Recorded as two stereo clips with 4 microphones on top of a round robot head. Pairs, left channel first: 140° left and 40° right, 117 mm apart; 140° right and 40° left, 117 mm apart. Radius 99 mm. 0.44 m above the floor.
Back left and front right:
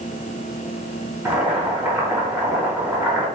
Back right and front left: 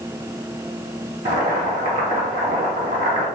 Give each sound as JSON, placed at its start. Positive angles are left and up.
{"t": 1.2, "sound": "boiling", "azimuth_deg": 40, "distance_m": 1.2}